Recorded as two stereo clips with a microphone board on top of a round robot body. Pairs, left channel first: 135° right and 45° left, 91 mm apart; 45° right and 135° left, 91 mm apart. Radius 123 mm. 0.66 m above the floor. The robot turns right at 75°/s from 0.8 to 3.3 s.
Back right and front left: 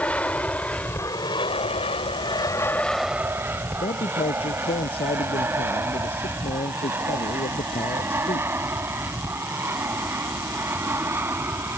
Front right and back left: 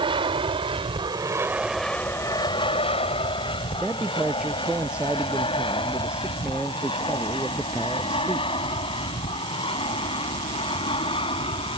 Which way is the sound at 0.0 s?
150° left.